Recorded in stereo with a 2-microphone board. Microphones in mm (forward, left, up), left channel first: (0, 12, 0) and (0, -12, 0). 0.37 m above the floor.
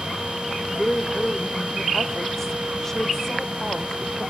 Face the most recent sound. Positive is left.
turn(degrees=15)  # may be behind; listen again after turning